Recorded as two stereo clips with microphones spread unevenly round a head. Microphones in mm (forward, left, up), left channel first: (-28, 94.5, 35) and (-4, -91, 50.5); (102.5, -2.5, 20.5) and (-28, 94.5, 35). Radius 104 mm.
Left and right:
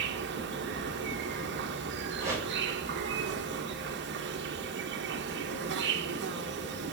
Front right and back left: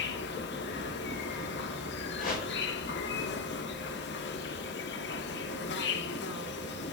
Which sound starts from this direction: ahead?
A whoosh, at 2.2 s.